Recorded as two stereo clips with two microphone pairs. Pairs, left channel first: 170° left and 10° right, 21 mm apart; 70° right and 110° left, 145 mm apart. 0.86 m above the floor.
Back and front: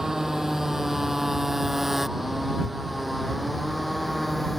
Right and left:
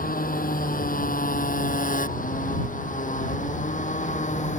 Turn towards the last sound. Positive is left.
turn(degrees=-100)